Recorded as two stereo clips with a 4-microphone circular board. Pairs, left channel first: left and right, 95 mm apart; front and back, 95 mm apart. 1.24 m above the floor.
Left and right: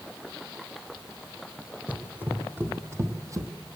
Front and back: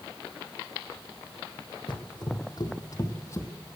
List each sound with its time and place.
1.9 s running footsteps: 15° right, 2 m; by 3.5 s 50° right, 1.8 m